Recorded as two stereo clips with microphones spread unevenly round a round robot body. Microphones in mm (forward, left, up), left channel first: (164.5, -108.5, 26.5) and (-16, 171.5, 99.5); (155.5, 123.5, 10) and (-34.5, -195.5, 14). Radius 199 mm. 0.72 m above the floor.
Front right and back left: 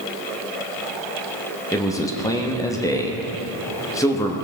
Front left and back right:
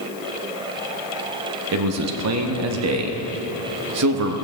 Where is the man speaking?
115° right, 0.9 m.